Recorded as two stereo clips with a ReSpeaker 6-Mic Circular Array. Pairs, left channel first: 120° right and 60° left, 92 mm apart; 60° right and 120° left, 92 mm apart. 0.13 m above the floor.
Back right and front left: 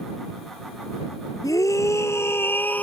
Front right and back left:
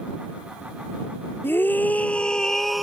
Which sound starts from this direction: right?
A scream, at 1.4 s.